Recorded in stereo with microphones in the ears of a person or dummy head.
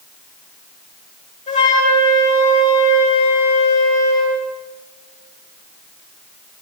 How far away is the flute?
About 8.5 m.